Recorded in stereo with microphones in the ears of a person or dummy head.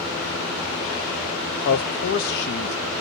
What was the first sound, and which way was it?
A man speaking, 55° left (ahead or behind).